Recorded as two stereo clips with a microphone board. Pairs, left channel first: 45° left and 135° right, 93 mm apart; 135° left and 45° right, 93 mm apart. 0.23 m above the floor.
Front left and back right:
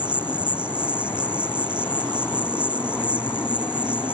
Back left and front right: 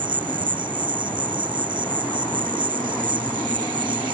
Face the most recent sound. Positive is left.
turn(degrees=-60)